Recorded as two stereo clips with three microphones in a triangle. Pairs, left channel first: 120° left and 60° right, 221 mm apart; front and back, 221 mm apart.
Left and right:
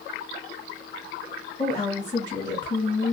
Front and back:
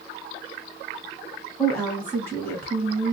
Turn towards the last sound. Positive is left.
turn(degrees=70)